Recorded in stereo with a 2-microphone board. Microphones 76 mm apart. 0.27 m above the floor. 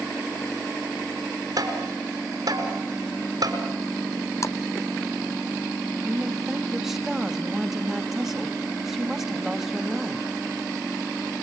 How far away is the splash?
About 1.0 m.